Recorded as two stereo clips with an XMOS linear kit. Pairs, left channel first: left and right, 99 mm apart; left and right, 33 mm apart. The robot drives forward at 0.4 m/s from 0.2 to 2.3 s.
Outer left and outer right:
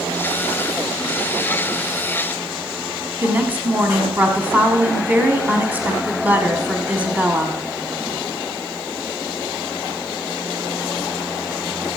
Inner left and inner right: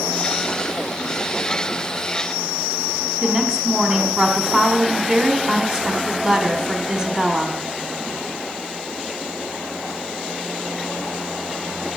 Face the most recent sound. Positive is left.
turn(degrees=-20)  # may be behind; listen again after turning